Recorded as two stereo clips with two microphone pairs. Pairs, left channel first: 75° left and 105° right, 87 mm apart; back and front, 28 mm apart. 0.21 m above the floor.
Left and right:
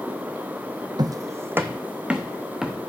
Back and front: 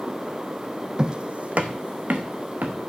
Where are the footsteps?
70° right, 0.5 m; by 2.8 s 20° right, 1.5 m.